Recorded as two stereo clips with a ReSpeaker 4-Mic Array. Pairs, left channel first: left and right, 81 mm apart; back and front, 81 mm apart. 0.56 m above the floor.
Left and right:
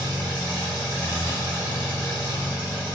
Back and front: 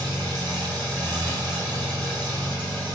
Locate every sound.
0.0 s an engine running: 25° left, 1.6 m